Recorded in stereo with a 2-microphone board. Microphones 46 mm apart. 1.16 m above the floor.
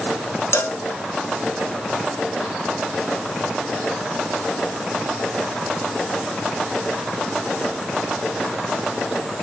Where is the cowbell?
70° left (ahead or behind), 1.0 m.